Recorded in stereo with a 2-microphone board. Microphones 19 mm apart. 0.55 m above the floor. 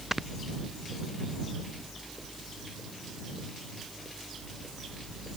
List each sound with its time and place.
0.1 s snoring: 15° right (ahead or behind)